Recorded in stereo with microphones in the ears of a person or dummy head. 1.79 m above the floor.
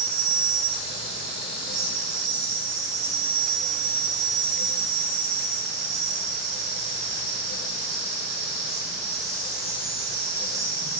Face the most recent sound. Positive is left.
turn(degrees=-5)  # may be behind; listen again after turning